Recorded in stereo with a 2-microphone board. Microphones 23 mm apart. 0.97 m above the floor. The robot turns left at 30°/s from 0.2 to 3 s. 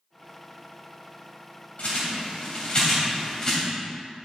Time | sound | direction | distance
1.8 | a bird | 65° left (ahead or behind) | 2.5 m